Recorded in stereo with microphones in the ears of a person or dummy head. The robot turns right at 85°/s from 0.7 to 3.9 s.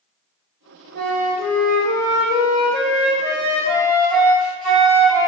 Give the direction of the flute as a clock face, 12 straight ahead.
2 o'clock.